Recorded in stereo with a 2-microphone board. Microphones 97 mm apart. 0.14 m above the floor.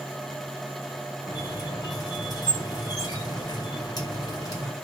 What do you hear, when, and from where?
1.3 s a squeak: 40° left (ahead or behind), 4.5 m